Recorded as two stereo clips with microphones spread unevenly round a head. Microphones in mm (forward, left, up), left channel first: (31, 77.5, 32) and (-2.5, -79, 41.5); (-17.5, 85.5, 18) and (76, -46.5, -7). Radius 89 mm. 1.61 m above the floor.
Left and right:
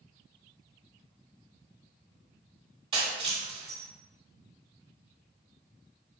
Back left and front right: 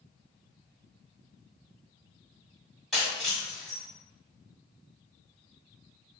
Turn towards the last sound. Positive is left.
turn(degrees=-155)